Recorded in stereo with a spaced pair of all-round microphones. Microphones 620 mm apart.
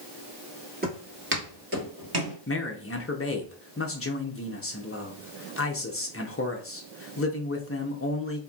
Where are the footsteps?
15° right (ahead or behind), 2.0 m; by 2.4 s 25° right (ahead or behind), 1.8 m.